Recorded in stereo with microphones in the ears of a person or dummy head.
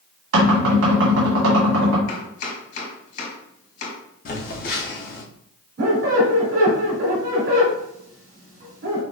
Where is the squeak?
45° right (ahead or behind), 2 m.